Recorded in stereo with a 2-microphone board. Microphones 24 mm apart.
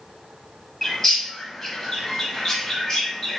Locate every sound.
0.8 s a bird: 25° left (ahead or behind), 0.8 m